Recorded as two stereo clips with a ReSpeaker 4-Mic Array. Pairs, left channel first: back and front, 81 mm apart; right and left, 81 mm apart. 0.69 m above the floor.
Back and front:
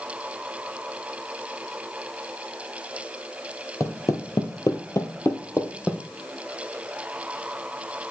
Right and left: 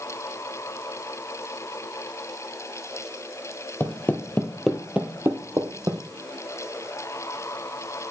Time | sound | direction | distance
3.8 | footsteps | 145° right | 1.2 m